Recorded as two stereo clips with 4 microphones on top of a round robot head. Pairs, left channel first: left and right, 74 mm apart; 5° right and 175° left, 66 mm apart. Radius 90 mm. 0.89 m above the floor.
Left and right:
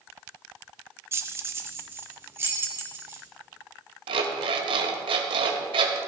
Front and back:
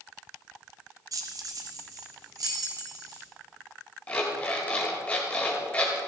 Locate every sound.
1.1 s keys jangling: 150° right, 1.2 m
4.1 s an alarm clock: 80° right, 1.7 m